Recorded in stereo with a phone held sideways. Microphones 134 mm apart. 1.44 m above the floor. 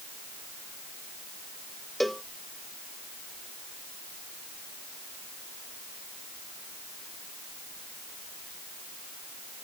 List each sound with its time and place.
2.0 s a cowbell: centre (ahead or behind)